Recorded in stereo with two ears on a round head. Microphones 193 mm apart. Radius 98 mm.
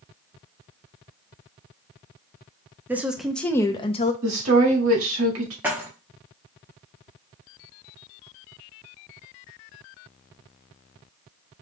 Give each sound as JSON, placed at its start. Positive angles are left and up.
{"t": 2.9, "sound": "a woman speaking", "side_deg": -10, "distance_m": 0.7}
{"t": 4.2, "sound": "a woman speaking", "side_deg": -70, "distance_m": 1.7}
{"t": 5.6, "sound": "keys jangling", "side_deg": -10, "distance_m": 1.0}